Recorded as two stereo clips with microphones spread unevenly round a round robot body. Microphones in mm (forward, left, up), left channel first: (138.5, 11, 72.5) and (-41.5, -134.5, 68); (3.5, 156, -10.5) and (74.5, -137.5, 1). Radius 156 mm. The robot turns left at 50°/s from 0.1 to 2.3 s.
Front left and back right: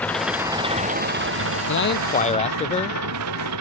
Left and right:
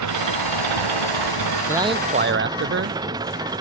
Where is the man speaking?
10° left; by 3.0 s 25° right.